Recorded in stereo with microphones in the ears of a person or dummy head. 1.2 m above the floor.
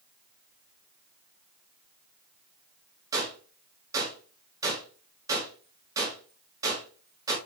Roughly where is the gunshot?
Centre.